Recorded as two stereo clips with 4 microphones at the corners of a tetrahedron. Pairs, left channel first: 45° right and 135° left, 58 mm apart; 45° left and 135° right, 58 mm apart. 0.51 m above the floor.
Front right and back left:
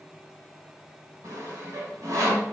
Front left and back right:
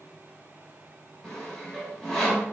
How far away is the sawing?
About 0.8 m.